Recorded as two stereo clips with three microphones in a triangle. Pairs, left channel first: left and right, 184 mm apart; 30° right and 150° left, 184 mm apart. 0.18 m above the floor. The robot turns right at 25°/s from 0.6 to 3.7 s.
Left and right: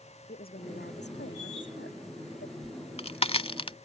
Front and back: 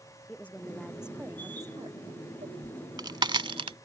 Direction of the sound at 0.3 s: 55° left.